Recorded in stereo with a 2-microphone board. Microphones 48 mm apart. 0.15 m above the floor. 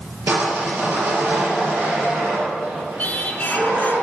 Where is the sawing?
65° right (ahead or behind), 4 m.